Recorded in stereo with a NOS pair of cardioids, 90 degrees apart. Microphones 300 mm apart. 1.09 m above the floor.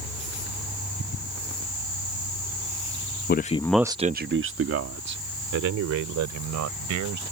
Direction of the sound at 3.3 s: 35° left.